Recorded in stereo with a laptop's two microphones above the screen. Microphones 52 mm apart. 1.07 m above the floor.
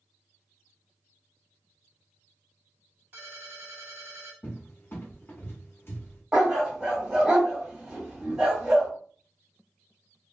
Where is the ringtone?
40° right (ahead or behind), 1.5 m.